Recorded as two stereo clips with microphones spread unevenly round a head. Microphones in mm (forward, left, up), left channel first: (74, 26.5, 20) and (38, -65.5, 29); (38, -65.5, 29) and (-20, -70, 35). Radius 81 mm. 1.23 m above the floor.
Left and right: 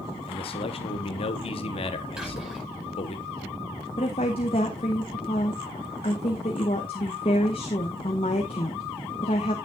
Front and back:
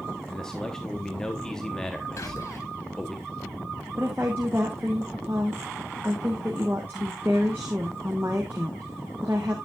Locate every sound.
0.3 s a man speaking: 85° left, 0.9 m
2.2 s whispering: 30° right, 5.5 m
4.0 s a woman speaking: 115° left, 0.8 m